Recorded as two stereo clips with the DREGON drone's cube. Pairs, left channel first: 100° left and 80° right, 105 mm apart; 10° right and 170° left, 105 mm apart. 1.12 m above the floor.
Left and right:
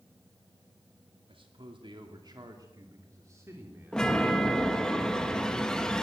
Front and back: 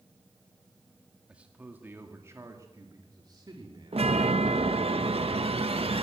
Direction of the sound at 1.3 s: 110° right.